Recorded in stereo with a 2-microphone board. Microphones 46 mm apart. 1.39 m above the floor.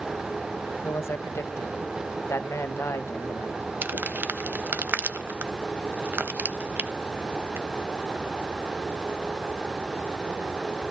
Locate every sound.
0.8 s a man speaking: 80° left, 1.4 m
3.8 s crumpling: 50° right (ahead or behind), 0.9 m